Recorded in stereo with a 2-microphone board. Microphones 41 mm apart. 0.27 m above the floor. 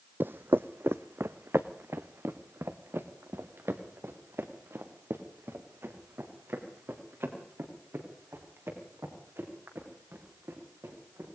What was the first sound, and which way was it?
Footsteps, 60° right (ahead or behind).